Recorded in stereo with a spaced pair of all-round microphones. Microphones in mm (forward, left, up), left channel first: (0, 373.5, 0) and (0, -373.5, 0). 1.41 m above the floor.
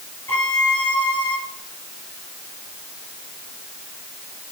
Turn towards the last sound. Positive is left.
turn(degrees=30)  # may be behind; listen again after turning